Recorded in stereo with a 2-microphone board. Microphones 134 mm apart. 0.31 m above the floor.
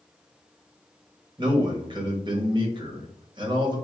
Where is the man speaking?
35° right (ahead or behind), 1.2 m.